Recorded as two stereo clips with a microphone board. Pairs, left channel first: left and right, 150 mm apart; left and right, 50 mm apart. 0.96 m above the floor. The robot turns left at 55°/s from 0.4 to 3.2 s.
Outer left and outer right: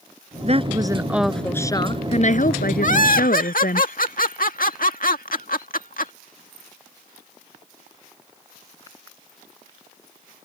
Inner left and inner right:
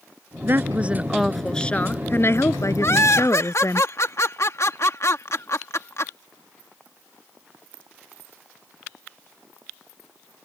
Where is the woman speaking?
135° right; by 3.8 s 75° left.